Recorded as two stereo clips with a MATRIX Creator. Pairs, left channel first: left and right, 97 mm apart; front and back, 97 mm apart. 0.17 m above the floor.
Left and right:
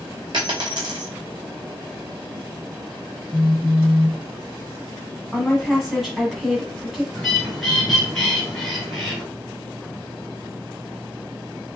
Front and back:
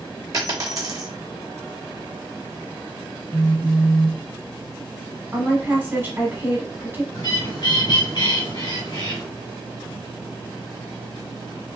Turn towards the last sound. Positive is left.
turn(degrees=5)